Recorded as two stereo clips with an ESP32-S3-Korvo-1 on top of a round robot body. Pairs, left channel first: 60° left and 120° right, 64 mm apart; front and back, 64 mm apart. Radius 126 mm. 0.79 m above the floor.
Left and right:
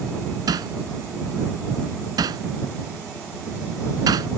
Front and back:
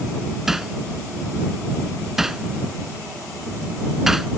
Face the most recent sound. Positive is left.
turn(degrees=-95)